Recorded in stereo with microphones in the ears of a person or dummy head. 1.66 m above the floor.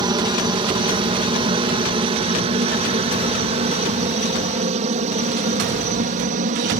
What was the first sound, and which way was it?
A helicopter, 25° right (ahead or behind).